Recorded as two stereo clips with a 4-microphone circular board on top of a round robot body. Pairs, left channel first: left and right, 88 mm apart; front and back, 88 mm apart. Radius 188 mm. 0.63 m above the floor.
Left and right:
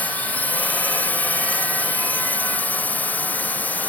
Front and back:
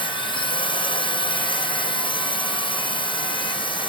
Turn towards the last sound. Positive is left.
turn(degrees=20)